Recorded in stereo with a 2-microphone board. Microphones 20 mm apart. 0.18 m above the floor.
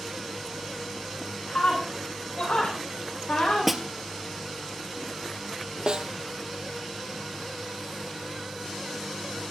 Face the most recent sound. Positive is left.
turn(degrees=-50)  # may be behind; listen again after turning